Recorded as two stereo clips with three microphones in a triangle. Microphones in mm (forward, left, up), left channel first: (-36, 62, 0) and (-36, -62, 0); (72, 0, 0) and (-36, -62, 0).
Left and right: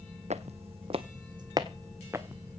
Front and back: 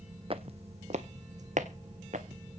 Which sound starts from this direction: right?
Footsteps, at 0.3 s.